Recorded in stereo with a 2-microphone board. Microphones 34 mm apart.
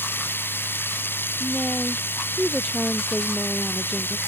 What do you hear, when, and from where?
0.0 s running water: 90° left
1.4 s a woman speaking: 15° right (ahead or behind)